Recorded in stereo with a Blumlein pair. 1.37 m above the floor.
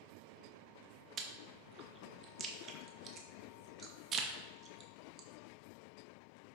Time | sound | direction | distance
1.2 | chewing | 30° right | 0.5 m